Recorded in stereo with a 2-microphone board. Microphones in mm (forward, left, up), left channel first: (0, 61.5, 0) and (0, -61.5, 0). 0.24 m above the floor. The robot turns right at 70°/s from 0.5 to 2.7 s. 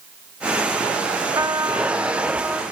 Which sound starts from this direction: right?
A trumpet, at 1.4 s.